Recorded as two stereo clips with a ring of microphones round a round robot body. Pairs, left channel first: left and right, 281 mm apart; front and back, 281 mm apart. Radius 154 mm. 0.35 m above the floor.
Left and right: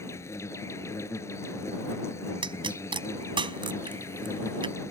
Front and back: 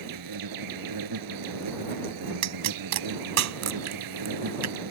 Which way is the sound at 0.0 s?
170° left.